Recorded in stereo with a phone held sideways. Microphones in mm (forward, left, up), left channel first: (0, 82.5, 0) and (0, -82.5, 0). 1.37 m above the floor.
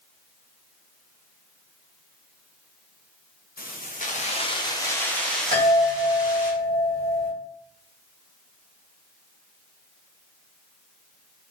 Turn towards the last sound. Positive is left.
turn(degrees=-60)  # may be behind; listen again after turning